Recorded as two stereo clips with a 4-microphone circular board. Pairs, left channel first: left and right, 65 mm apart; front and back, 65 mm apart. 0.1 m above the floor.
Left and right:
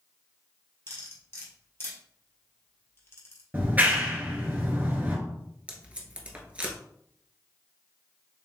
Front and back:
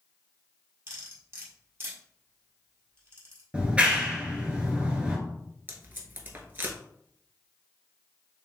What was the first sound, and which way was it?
Cutlery clinking, 135° left.